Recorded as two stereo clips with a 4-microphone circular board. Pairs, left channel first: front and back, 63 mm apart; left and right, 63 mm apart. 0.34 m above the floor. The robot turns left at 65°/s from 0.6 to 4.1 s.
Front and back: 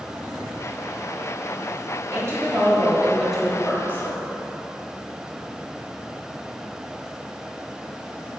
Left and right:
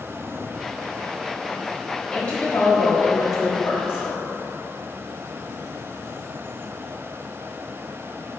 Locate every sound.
2.1 s a woman speaking: 165° left, 1.5 m; by 4.3 s 35° left, 1.5 m